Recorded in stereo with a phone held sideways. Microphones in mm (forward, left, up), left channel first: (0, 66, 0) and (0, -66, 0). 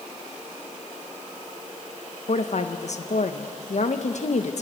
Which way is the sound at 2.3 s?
60° left (ahead or behind).